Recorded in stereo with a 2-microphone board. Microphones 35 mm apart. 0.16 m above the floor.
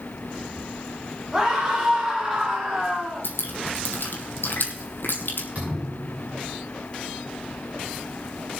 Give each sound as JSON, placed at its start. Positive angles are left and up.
{"t": 1.3, "sound": "a scream", "side_deg": -20, "distance_m": 6.0}
{"t": 3.2, "sound": "dripping", "side_deg": 80, "distance_m": 2.0}
{"t": 5.5, "sound": "a thud", "side_deg": -45, "distance_m": 7.5}